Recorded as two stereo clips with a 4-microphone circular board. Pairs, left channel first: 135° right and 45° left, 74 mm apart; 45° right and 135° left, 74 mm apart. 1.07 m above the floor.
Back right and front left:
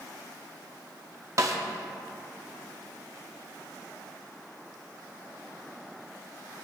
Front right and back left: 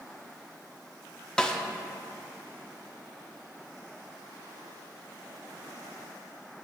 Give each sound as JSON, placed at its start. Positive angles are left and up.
{"t": 1.4, "sound": "a snare drum", "azimuth_deg": 30, "distance_m": 0.7}